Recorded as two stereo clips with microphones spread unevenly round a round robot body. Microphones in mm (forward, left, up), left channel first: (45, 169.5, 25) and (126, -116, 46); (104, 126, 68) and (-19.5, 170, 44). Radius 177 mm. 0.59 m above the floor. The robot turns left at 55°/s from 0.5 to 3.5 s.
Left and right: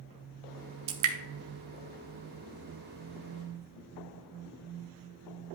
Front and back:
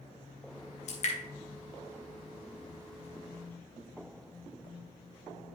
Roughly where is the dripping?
Ahead right.